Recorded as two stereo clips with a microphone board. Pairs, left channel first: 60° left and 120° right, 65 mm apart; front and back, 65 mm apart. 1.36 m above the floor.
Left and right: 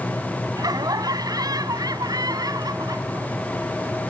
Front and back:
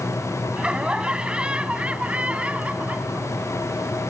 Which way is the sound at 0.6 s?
105° right.